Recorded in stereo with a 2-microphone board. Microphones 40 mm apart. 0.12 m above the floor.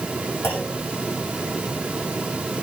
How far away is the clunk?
About 9.5 m.